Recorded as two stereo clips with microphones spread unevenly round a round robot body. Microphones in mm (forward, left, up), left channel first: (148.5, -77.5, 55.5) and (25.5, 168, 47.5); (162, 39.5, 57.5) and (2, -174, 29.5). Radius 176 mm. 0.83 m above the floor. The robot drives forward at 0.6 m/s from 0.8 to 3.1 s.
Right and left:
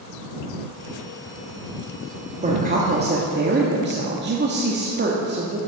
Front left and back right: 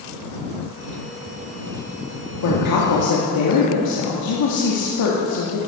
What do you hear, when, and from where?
2.4 s a woman speaking: 55° left, 1.8 m; by 5.6 s 70° left, 1.7 m